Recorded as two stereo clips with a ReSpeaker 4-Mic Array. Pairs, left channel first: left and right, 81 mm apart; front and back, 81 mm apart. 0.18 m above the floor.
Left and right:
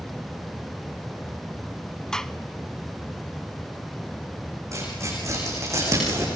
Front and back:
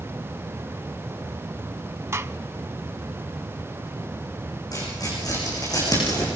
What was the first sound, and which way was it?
A gunshot, 170° left.